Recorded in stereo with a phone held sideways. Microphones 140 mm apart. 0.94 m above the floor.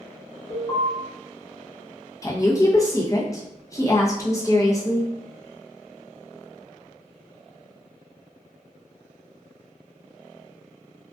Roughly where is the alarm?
Left.